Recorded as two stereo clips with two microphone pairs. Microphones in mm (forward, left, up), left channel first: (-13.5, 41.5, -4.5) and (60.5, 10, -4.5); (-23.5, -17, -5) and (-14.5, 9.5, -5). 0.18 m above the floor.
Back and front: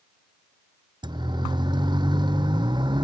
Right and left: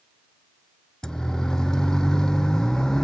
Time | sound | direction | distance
1.0 | a siren | 45° right | ?